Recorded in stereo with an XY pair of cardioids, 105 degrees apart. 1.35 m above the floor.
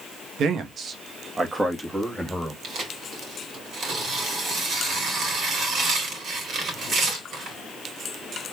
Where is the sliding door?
I don't hear a sliding door.